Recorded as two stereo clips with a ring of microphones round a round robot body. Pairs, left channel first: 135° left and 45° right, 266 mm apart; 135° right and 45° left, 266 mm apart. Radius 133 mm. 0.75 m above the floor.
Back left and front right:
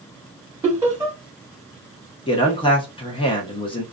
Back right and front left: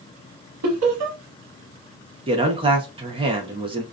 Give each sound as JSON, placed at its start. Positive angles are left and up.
{"t": 0.6, "sound": "laughter", "azimuth_deg": 35, "distance_m": 1.0}
{"t": 2.3, "sound": "a man speaking", "azimuth_deg": 90, "distance_m": 0.7}